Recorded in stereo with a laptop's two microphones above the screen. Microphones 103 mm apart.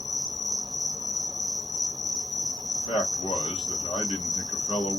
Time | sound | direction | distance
0.0 | an insect | 40° right (ahead or behind) | 1.0 m
2.8 | a man speaking | 70° left (ahead or behind) | 1.5 m